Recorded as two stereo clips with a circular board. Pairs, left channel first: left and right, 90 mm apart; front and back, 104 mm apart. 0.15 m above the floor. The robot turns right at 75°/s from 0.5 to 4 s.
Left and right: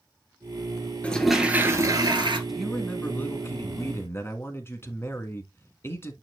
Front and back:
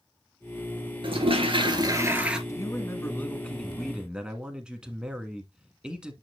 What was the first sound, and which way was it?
A toilet flushing, 165° left.